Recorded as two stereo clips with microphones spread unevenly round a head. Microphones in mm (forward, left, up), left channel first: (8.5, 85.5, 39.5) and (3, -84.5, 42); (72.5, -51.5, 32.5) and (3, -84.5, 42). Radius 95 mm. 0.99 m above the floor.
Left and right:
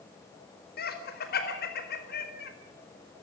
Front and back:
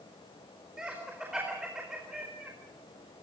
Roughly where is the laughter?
Behind left.